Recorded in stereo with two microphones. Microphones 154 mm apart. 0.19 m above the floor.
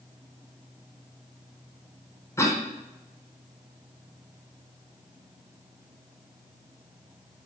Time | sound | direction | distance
2.4 | a cough | 20° left (ahead or behind) | 1.5 m